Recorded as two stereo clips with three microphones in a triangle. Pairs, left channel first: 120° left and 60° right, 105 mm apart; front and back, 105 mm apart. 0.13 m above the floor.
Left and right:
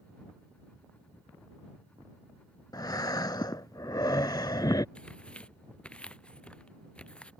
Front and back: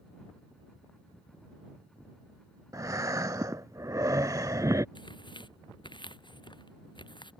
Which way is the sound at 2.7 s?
145° left.